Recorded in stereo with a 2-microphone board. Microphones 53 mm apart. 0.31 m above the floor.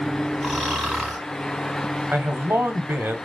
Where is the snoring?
10° right (ahead or behind), 3 m.